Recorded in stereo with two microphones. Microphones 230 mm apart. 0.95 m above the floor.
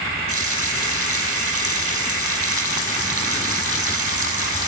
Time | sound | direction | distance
0.3 | a running tap | 70° left (ahead or behind) | 5 m